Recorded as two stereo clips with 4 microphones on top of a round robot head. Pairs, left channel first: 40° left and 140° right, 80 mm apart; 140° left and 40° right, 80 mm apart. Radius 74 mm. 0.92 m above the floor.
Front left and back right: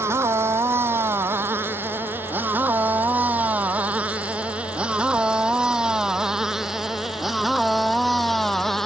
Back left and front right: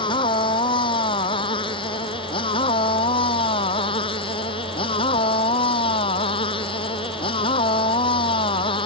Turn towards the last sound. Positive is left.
turn(degrees=125)